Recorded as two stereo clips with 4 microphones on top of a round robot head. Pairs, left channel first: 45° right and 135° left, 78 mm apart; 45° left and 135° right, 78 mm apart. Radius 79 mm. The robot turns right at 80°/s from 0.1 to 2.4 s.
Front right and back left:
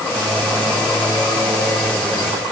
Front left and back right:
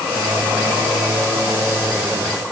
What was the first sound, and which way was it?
Only background noise.